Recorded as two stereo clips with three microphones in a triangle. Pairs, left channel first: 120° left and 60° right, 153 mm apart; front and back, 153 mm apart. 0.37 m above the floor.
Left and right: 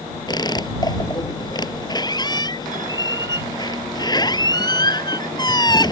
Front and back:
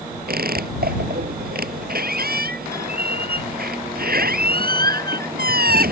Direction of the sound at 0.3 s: Straight behind.